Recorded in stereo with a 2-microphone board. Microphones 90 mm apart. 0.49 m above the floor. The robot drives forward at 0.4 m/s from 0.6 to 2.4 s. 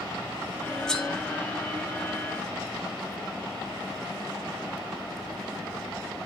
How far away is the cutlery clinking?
About 1.3 m.